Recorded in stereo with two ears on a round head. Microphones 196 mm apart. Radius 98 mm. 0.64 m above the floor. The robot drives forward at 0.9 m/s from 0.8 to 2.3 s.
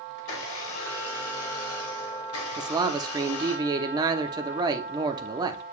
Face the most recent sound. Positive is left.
turn(degrees=-20)  # may be behind; listen again after turning